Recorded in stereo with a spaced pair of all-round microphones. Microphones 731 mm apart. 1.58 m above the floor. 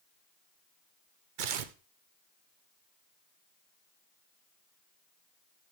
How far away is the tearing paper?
About 0.8 m.